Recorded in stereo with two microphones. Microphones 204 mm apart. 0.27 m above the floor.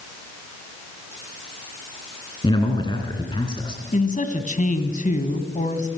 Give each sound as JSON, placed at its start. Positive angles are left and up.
{"t": 2.4, "sound": "a man speaking", "side_deg": 25, "distance_m": 2.5}
{"t": 3.9, "sound": "a man speaking", "side_deg": 40, "distance_m": 2.0}